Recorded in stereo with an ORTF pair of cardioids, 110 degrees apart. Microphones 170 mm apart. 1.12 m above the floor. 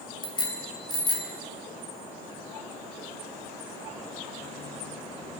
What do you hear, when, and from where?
0.2 s a bicycle bell: 25° left, 4 m